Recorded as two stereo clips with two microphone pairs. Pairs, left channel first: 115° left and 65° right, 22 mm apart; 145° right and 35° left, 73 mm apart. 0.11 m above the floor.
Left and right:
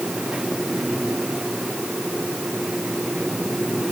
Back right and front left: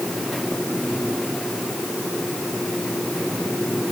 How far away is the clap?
I don't hear a clap.